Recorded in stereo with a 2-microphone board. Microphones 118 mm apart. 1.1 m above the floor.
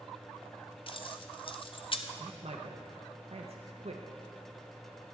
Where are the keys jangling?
50° left (ahead or behind), 0.5 m.